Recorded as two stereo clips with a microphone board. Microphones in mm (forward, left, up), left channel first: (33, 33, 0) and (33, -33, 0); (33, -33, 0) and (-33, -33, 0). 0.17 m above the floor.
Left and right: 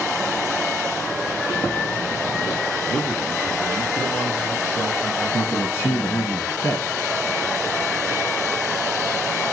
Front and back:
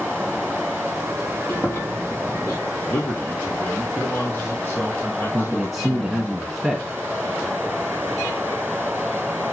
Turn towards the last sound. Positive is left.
turn(degrees=90)